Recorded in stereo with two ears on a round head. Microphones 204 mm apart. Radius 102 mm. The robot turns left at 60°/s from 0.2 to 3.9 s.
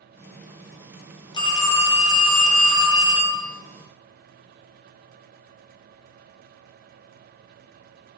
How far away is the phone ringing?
About 0.6 m.